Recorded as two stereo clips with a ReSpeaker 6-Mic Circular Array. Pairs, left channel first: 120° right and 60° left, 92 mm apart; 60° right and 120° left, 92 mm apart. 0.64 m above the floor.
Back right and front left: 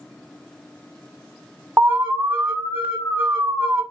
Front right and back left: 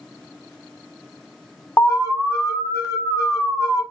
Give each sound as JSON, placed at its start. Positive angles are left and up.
{"t": 1.8, "sound": "an alarm", "azimuth_deg": -10, "distance_m": 1.0}